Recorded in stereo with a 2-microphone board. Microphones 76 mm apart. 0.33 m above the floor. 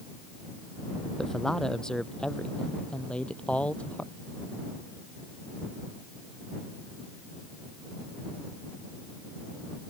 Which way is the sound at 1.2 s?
5° left (ahead or behind).